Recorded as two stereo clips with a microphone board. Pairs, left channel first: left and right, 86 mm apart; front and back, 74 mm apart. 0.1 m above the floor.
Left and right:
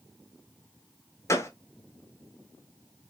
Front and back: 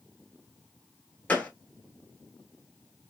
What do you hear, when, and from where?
1.3 s a gunshot: 60° left, 0.9 m